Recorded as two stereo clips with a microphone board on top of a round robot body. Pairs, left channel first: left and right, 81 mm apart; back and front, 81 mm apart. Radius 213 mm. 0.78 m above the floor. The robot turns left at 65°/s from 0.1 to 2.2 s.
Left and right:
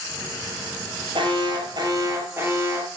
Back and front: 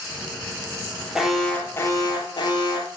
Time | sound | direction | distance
1.1 | an alarm | 80° right | 7.5 m